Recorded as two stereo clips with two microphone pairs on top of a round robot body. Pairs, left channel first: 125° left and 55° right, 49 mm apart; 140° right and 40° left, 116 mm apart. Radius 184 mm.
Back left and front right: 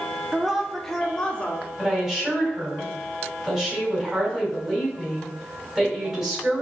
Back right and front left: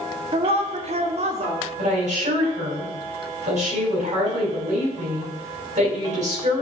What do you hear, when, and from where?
0.3 s a woman speaking: 20° left, 1.3 m; by 1.7 s 65° left, 1.8 m
1.8 s a woman speaking: 25° left, 4 m